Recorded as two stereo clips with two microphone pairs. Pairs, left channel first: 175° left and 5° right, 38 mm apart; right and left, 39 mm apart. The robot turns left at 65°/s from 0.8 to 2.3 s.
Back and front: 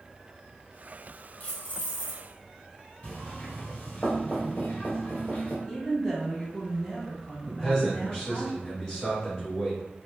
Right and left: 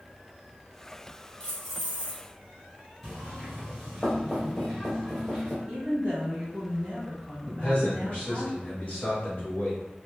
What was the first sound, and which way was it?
Keys jangling, 150° right.